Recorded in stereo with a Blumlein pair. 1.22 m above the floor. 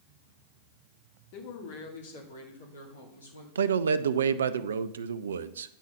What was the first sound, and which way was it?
A man speaking, 45° left.